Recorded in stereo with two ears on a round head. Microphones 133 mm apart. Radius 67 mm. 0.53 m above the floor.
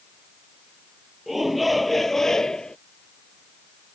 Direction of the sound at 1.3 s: Centre (ahead or behind).